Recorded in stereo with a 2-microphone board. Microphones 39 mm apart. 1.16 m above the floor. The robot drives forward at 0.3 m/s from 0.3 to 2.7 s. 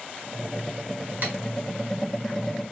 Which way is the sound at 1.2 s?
55° right (ahead or behind).